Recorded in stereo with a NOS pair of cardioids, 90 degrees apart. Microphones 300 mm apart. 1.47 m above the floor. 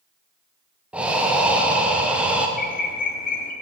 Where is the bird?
30° left, 0.7 m.